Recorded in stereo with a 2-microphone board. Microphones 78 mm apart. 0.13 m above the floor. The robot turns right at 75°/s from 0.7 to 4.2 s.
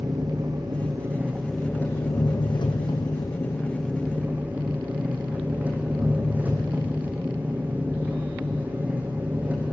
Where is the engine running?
65° right, 2.5 m; by 9.7 s 160° right, 2.5 m.